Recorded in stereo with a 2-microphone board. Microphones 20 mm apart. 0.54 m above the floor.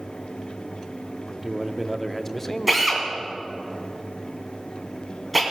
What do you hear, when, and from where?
1.3 s a man speaking: 15° right (ahead or behind), 0.6 m; by 3.7 s 35° left (ahead or behind), 1.3 m
2.7 s a drill: 5° right (ahead or behind), 2.5 m